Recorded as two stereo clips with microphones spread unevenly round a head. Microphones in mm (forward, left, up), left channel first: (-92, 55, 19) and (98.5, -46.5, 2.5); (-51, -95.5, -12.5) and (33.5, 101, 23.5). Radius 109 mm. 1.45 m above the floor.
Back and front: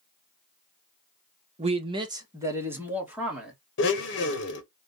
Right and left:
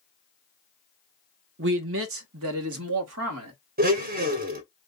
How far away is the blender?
About 1.1 m.